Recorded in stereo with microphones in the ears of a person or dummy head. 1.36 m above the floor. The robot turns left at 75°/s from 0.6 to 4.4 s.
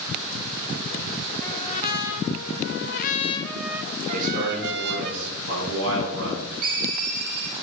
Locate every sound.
1.4 s a trumpet: 165° left, 0.9 m; by 5.1 s 60° right, 0.9 m
4.1 s a man speaking: 40° right (ahead or behind), 5.5 m; by 6.5 s 60° right (ahead or behind), 5.5 m
6.6 s a ringtone: 45° right (ahead or behind), 5 m